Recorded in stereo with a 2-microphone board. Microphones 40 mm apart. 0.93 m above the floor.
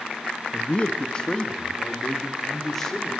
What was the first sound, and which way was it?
A man speaking, 35° left (ahead or behind).